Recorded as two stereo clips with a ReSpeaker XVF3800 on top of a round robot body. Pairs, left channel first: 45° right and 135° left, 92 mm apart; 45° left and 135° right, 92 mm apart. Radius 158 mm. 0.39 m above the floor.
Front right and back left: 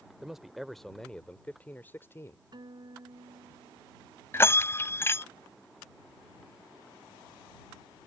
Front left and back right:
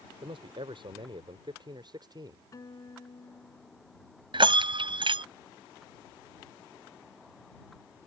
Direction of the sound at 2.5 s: 95° left.